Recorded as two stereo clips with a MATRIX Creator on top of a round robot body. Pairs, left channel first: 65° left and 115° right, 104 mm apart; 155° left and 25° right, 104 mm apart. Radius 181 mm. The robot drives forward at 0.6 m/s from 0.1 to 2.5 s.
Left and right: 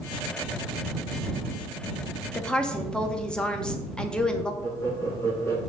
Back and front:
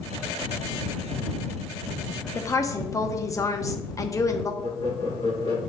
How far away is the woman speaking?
About 1.1 m.